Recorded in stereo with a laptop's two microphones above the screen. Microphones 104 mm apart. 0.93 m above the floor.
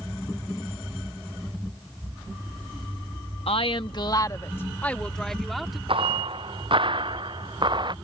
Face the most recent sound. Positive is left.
turn(degrees=-50)  # may be behind; listen again after turning